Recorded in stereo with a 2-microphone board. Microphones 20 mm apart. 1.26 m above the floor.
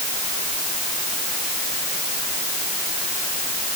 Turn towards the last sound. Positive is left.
No sound to turn to.